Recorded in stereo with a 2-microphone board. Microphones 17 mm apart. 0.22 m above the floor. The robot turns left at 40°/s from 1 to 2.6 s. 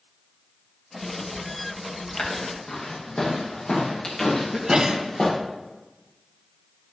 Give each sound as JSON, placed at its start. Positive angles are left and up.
{"t": 2.2, "sound": "footsteps", "side_deg": 65, "distance_m": 7.5}
{"t": 4.5, "sound": "a sneeze", "side_deg": -40, "distance_m": 1.9}